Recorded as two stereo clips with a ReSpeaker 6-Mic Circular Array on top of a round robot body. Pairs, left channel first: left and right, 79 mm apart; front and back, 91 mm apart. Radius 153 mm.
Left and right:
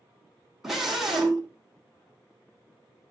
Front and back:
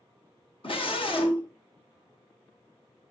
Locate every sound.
0.6 s a scream: 5° right, 3 m